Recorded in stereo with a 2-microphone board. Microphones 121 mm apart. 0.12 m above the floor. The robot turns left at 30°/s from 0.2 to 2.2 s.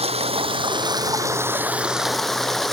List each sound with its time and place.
0.0 s running water: 120° right; by 2.7 s straight behind